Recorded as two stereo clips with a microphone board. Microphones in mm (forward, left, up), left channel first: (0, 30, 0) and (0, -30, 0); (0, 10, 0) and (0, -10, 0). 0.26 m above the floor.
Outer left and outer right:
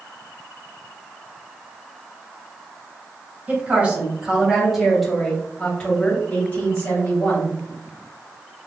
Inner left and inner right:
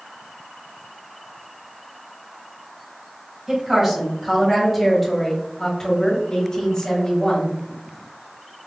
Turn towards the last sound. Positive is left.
turn(degrees=50)  # may be behind; listen again after turning